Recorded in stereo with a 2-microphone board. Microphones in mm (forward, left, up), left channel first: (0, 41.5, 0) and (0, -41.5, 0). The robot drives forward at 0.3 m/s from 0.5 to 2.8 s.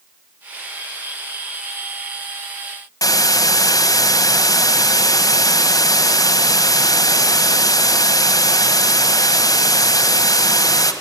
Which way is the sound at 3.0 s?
45° left (ahead or behind).